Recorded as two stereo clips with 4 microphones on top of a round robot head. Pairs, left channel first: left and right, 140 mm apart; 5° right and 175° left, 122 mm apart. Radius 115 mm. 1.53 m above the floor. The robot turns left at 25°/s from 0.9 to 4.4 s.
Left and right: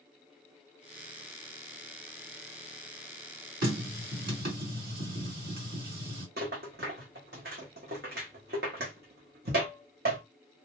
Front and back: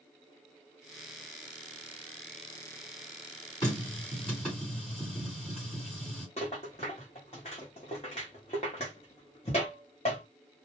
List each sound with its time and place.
3.6 s a running tap: 75° right, 1.7 m; by 6.3 s 95° right, 1.7 m
6.4 s a rattle: 65° right, 0.7 m